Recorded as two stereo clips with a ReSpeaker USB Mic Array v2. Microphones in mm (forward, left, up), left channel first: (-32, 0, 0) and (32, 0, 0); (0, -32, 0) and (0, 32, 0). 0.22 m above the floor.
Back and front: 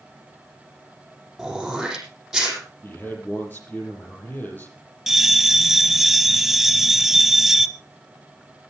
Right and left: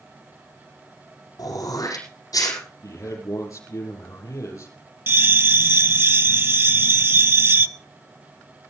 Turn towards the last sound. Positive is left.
turn(degrees=85)